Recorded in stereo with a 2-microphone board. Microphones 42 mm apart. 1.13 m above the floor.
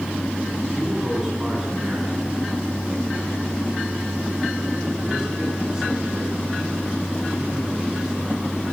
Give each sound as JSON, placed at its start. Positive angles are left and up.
{"t": 0.7, "sound": "a man speaking", "side_deg": -10, "distance_m": 9.0}